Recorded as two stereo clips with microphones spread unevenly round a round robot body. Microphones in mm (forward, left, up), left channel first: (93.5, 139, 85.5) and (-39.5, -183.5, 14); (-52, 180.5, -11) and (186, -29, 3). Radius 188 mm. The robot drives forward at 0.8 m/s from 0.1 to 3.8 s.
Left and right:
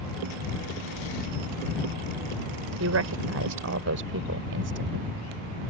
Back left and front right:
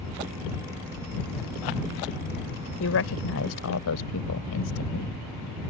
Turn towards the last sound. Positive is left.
turn(degrees=-170)